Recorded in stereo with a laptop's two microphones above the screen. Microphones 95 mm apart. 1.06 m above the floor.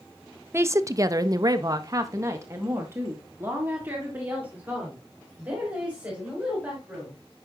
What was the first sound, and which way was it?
A woman speaking, 25° right (ahead or behind).